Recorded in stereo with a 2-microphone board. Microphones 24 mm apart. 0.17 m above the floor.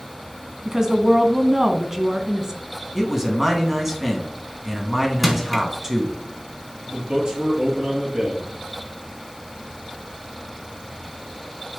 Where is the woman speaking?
30° right (ahead or behind), 1.1 m.